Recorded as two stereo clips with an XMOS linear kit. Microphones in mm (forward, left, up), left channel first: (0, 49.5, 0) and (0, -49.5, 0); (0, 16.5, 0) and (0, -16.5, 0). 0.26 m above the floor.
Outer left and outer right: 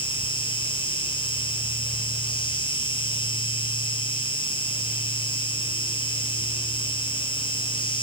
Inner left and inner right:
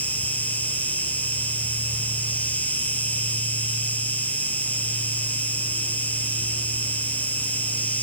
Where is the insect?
60° left (ahead or behind), 3 m.